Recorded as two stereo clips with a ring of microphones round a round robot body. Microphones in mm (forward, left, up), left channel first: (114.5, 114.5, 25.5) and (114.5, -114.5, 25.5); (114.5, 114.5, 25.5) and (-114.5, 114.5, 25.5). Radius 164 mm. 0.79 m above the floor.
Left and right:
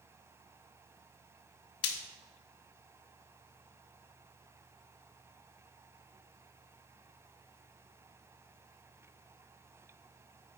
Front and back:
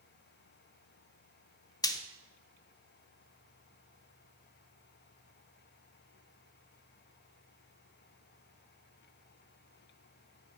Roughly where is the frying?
Left.